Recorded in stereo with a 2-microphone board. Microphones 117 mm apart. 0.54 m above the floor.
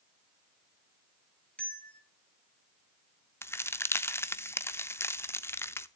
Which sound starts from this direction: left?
A crack, at 3.4 s.